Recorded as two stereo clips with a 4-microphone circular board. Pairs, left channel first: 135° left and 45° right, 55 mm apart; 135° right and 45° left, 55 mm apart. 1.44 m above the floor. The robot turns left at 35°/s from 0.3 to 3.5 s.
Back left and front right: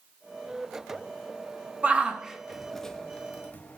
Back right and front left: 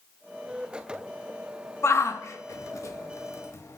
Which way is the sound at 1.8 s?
105° right.